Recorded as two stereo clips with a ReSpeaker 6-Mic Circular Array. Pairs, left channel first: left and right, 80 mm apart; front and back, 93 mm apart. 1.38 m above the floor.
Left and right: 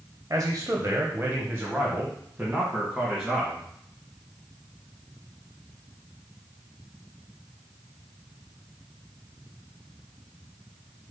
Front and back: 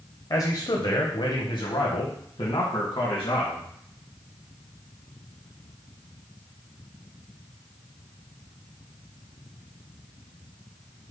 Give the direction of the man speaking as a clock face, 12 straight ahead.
1 o'clock.